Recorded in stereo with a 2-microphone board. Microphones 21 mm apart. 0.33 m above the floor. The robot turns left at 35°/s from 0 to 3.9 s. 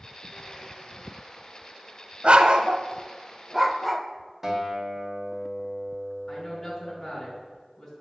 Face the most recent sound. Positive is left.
turn(degrees=25)  # may be behind; listen again after turning